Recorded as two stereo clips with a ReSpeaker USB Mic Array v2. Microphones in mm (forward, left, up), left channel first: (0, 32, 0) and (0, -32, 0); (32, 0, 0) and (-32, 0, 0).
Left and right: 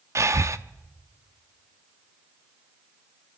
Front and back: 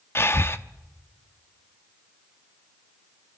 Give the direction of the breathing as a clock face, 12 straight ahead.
2 o'clock.